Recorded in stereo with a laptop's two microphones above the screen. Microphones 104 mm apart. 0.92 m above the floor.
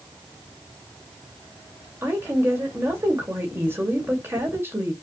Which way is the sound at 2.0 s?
25° right (ahead or behind).